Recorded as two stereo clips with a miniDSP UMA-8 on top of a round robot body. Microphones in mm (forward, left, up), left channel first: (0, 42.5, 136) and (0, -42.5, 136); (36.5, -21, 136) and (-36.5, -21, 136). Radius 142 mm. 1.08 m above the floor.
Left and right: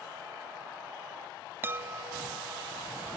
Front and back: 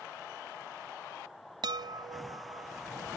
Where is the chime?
155° right.